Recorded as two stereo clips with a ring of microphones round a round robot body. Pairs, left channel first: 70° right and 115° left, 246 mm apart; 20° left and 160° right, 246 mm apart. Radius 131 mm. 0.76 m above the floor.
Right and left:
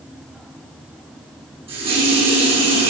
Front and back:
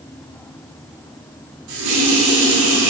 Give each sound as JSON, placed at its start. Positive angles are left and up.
{"t": 1.7, "sound": "a running tap", "azimuth_deg": -175, "distance_m": 6.0}